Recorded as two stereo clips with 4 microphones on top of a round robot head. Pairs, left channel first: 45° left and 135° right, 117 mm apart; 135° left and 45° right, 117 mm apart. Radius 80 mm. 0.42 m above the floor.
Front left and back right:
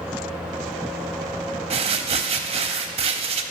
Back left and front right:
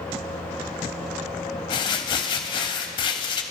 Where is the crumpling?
175° right, 0.6 m.